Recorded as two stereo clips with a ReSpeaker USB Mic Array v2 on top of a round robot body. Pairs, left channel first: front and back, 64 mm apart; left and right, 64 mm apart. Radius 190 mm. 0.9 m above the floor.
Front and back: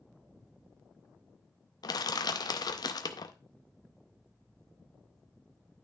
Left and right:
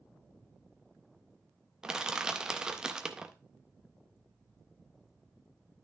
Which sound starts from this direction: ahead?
Crushing, at 1.8 s.